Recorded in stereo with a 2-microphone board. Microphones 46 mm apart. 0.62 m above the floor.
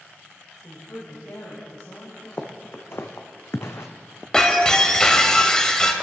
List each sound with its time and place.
0.6 s a woman speaking: 70° left (ahead or behind), 2 m; by 2.3 s 80° left, 4.5 m
2.4 s footsteps: 50° left (ahead or behind), 1.6 m; by 3.9 s 65° left (ahead or behind), 1.5 m
4.3 s breaking glass: 15° left (ahead or behind), 1.1 m